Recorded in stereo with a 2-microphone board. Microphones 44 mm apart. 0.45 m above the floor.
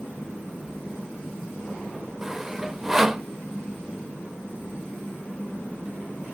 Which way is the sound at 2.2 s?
10° right (ahead or behind).